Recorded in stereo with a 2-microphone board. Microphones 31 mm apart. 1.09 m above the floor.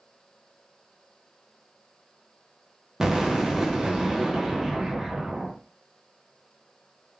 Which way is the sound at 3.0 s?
15° right (ahead or behind).